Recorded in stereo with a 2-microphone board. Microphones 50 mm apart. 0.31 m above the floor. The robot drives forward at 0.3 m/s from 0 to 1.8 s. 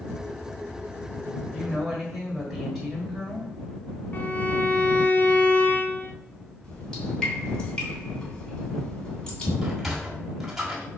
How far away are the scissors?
I don't hear scissors.